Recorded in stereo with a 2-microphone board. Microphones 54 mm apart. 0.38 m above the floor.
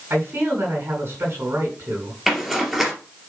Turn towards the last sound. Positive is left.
turn(degrees=-5)  # may be behind; listen again after turning